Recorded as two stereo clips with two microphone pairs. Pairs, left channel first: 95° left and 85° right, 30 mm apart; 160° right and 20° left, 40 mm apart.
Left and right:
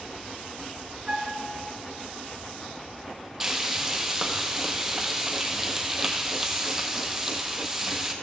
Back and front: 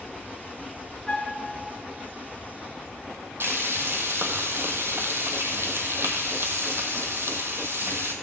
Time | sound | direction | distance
1.1 | a flute | 115° right | 1.3 m
3.4 | frying | straight ahead | 1.4 m